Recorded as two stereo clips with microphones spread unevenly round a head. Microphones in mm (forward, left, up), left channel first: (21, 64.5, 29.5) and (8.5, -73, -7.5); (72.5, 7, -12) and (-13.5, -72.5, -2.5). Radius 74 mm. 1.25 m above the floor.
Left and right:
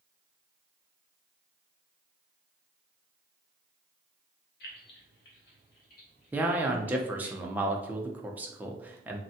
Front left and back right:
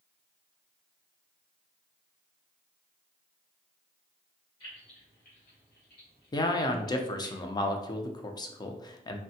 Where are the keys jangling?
110° left, 0.8 m; by 7.3 s 50° left, 2.0 m.